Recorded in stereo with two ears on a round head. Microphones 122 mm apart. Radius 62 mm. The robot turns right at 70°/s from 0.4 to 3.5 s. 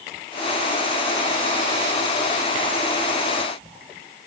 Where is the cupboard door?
No cupboard door in this recording.